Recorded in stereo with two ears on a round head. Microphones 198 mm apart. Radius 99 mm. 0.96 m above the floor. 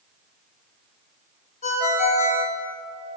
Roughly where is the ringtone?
Left.